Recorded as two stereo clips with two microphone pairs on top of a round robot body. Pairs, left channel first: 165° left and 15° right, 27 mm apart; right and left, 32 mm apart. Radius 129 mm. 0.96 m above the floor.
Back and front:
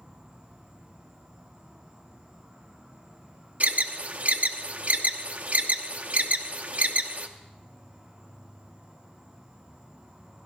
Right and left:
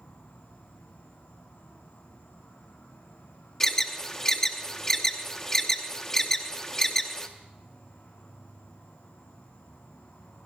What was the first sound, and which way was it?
An insect, 75° right.